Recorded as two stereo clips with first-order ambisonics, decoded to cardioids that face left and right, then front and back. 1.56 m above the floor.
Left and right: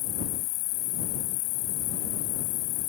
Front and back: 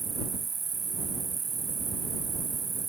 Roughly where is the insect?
Left.